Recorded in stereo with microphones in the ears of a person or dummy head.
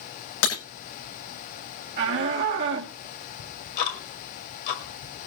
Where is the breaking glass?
80° left, 7.5 m.